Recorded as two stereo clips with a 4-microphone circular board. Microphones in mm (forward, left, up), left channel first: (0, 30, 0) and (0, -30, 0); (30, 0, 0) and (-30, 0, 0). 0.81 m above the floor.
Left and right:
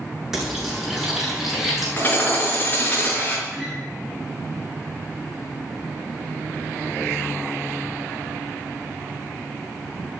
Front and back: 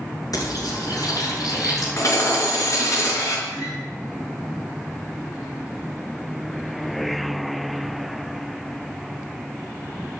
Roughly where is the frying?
Ahead.